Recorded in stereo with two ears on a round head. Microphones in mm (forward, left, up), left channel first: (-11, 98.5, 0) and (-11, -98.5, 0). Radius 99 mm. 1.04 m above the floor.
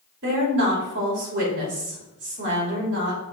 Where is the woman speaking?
55° right (ahead or behind), 3 m.